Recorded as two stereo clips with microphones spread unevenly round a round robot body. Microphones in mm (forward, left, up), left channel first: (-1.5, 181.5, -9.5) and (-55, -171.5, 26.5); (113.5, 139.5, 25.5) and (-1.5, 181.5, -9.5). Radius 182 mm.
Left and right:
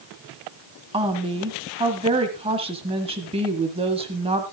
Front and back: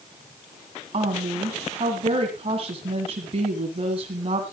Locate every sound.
0.9 s a woman speaking: 175° right, 1.8 m